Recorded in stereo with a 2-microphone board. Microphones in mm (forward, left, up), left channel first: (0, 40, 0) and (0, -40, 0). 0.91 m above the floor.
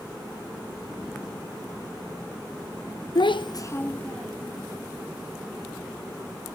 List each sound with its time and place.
3.1 s a child speaking: 70° left (ahead or behind), 0.6 m; by 4.6 s 5° left (ahead or behind), 1.8 m